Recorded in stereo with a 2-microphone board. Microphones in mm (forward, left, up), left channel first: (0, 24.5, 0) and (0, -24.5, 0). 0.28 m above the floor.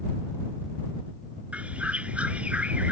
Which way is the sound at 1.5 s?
25° right (ahead or behind).